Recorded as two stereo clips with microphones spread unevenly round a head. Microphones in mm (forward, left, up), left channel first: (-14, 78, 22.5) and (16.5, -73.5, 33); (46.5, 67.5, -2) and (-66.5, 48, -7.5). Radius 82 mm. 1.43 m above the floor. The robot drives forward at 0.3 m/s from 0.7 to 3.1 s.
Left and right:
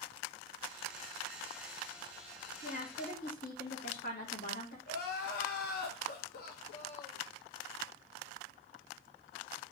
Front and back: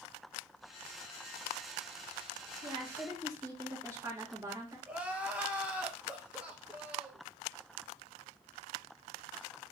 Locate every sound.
2.6 s a woman speaking: 125° left, 2 m; by 4.8 s 130° left, 2.5 m
4.9 s crying: 115° left, 1.1 m